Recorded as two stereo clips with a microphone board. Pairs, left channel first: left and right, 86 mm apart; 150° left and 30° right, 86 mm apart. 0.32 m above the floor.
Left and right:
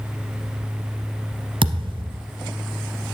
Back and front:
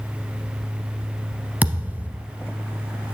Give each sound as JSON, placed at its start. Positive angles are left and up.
{"t": 1.6, "sound": "a thud", "azimuth_deg": -100, "distance_m": 0.7}